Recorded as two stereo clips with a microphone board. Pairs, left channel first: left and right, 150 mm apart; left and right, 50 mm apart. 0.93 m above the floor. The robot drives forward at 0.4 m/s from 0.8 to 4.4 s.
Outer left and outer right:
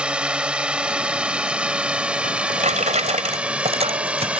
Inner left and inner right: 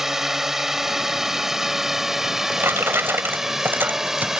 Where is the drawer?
60° right (ahead or behind); by 4.4 s 45° right (ahead or behind).